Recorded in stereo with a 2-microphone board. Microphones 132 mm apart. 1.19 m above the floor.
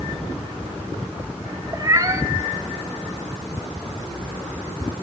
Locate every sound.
1.7 s a cat meowing: 30° right (ahead or behind), 0.7 m